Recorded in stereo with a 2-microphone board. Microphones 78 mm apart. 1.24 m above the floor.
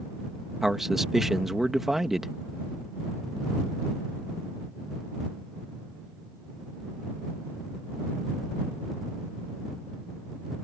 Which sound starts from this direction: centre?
A man speaking, at 0.6 s.